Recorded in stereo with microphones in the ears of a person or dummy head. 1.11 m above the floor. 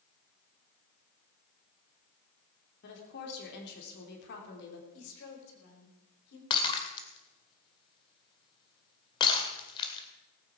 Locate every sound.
2.8 s a woman speaking: 65° left (ahead or behind), 3 m
4.9 s a woman speaking: 70° left (ahead or behind), 3.5 m
6.5 s breaking glass: 25° left (ahead or behind), 1.8 m